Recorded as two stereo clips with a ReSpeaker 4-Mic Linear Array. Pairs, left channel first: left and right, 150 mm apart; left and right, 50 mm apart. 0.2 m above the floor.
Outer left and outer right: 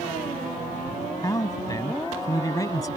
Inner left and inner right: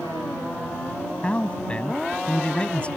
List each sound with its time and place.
1.2 s a man speaking: 25° left (ahead or behind)